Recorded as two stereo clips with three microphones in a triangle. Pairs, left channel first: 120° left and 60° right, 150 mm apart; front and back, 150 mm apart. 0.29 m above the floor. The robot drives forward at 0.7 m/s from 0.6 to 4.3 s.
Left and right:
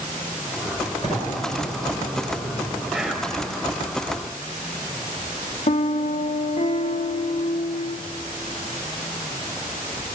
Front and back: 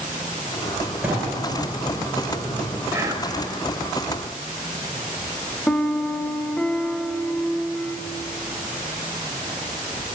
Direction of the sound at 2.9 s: 140° right.